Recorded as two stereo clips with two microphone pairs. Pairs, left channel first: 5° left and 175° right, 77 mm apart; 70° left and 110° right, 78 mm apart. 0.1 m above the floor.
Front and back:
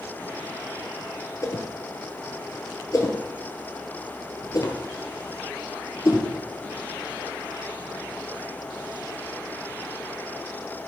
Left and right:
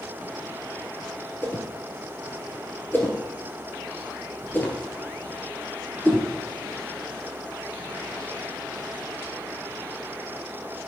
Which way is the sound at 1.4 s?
20° left.